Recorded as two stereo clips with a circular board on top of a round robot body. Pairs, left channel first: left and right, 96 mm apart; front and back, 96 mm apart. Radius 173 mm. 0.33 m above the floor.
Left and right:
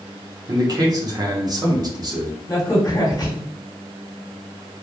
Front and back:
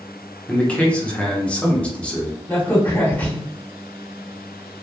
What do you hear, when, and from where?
0.5 s a man speaking: 75° right, 1.1 m
2.5 s a crack: 65° left, 1.8 m